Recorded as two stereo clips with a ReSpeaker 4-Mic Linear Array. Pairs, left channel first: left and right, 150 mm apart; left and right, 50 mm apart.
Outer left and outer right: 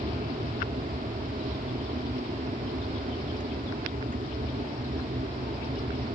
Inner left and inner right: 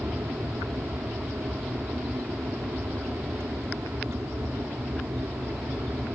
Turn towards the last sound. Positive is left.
turn(degrees=-65)  # may be behind; listen again after turning